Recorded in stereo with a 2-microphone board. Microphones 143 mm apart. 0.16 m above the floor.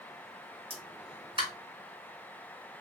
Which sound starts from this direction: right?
A pop, at 0.7 s.